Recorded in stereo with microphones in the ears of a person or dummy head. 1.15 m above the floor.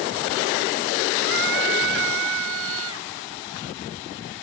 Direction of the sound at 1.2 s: 65° right (ahead or behind).